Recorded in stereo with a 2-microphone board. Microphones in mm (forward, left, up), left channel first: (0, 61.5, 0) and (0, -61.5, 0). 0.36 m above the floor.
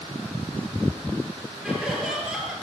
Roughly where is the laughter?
Centre.